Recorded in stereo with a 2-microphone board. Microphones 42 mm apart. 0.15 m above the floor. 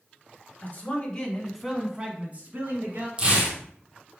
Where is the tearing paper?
25° right (ahead or behind), 1.3 m.